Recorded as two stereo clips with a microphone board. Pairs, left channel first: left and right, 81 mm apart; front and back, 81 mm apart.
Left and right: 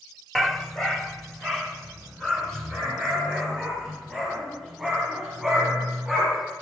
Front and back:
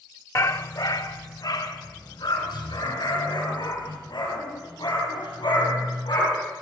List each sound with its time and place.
0.3 s a dog barking: 5° left, 0.7 m